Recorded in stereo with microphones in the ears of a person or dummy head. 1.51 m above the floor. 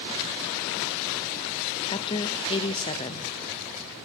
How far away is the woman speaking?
About 0.5 m.